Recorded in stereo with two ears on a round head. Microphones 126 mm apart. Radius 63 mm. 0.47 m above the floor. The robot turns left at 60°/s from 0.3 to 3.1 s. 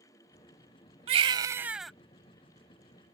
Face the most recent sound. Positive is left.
turn(degrees=105)